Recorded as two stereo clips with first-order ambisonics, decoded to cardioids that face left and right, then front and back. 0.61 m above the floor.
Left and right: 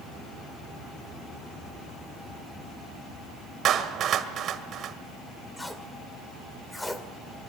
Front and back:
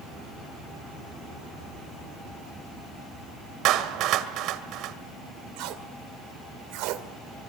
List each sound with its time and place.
3.6 s a clap: 140° right, 1.8 m
5.6 s tape being pulled: 175° left, 2 m